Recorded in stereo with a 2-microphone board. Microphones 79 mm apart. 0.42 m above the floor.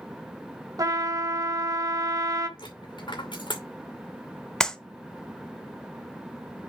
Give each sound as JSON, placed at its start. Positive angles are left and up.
{"t": 0.8, "sound": "a trumpet", "side_deg": -50, "distance_m": 1.2}
{"t": 2.6, "sound": "a dropped coin", "side_deg": 80, "distance_m": 2.5}
{"t": 4.6, "sound": "a clap", "side_deg": 5, "distance_m": 0.8}